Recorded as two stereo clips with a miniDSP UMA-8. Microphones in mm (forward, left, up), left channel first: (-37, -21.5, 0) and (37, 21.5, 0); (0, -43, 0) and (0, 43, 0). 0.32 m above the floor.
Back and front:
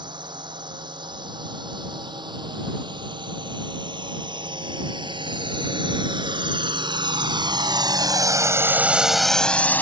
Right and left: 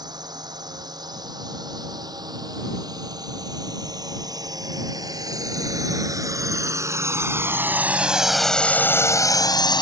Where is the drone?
55° left; by 9.8 s 85° right.